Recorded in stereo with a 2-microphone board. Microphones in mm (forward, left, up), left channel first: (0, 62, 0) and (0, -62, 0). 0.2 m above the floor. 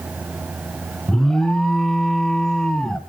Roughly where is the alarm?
Centre.